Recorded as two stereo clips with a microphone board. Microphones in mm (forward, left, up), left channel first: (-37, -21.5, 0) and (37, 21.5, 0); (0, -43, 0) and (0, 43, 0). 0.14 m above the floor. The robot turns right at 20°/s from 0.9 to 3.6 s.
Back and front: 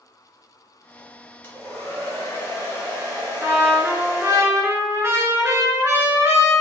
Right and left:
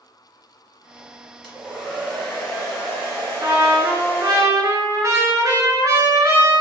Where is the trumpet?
70° left, 0.5 m; by 6.6 s 75° left, 0.5 m.